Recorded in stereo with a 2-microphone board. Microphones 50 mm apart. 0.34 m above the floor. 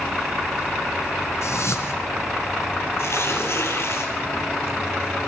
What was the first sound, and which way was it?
A whoosh, 70° left (ahead or behind).